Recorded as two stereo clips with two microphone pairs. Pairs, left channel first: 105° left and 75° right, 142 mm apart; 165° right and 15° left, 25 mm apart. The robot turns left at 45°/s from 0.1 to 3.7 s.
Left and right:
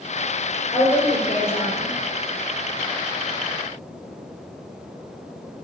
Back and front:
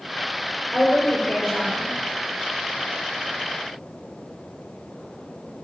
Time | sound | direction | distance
0.7 | a woman speaking | 165° left | 4 m